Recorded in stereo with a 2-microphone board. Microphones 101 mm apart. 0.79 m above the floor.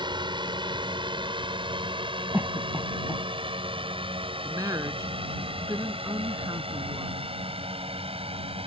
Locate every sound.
0.0 s a drone: 45° right (ahead or behind); by 8.7 s 65° right (ahead or behind)
2.3 s a cough: 20° right (ahead or behind)
4.4 s a woman speaking: 35° right (ahead or behind)